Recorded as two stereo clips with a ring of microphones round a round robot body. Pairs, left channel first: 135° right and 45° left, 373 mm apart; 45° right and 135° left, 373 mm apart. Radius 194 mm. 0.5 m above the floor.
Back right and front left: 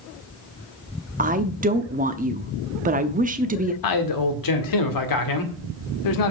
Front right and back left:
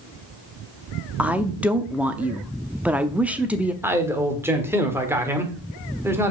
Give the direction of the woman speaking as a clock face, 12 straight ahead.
10 o'clock.